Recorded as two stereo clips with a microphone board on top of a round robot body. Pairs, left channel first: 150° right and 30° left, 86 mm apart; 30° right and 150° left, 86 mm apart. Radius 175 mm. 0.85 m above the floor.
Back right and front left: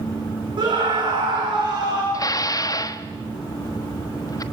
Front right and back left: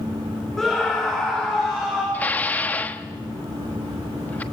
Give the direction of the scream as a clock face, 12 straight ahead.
10 o'clock.